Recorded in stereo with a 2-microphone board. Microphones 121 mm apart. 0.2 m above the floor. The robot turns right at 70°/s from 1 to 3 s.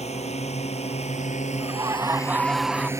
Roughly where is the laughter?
Right.